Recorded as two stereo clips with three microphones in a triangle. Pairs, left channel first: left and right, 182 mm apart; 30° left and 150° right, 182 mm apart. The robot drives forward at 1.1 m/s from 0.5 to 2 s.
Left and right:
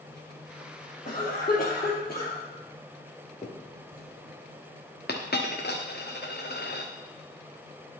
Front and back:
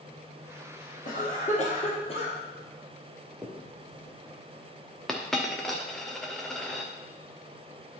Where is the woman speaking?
No woman speaking in this recording.